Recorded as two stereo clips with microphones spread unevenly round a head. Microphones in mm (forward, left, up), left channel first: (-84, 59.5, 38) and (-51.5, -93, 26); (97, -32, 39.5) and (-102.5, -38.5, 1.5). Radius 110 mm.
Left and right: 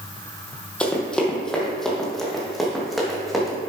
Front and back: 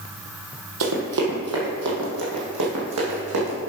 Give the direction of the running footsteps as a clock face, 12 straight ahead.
6 o'clock.